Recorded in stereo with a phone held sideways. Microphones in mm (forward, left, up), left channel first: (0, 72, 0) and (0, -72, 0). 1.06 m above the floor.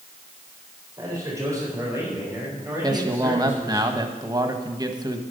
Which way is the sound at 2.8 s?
30° right (ahead or behind).